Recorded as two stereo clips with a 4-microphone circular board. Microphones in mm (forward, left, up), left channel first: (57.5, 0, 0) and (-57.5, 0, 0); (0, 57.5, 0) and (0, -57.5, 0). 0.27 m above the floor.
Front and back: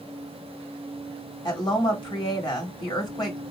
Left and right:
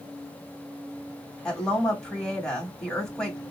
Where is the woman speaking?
10° left, 1.5 m.